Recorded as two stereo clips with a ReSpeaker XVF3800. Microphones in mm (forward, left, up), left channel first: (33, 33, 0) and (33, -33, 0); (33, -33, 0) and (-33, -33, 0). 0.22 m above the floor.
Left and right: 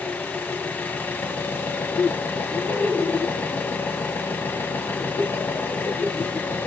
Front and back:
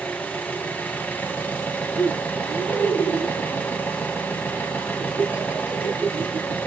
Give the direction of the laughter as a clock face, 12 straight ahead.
8 o'clock.